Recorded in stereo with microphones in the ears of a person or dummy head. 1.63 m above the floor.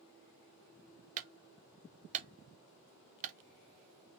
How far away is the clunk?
About 0.9 m.